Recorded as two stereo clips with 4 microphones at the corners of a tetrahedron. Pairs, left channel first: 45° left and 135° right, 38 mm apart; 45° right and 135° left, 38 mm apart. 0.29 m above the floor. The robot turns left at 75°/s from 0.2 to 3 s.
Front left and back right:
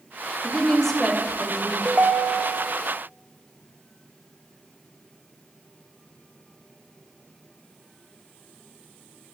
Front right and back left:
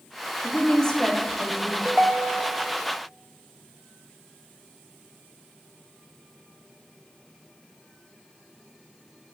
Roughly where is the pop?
No pop in this recording.